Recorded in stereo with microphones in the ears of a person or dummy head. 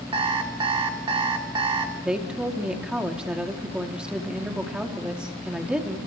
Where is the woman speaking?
5° right (ahead or behind), 3 m.